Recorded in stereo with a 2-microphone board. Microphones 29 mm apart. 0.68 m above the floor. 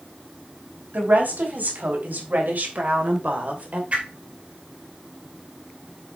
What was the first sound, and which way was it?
A woman speaking, 80° right.